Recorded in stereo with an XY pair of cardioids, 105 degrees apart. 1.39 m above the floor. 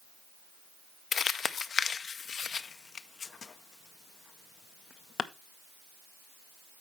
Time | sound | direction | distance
1.1 | crumpling | 45° left | 0.5 m